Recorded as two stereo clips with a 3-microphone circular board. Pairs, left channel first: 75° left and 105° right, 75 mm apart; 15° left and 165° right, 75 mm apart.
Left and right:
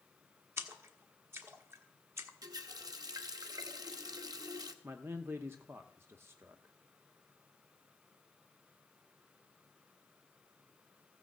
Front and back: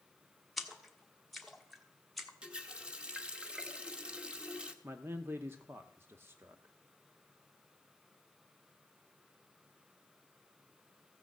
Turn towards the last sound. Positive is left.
turn(degrees=-135)